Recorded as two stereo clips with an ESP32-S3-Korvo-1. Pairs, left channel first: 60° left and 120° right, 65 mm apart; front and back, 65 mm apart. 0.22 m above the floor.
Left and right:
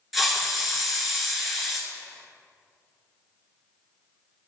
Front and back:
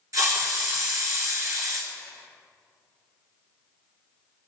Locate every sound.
0.1 s a hiss: 155° left, 1.7 m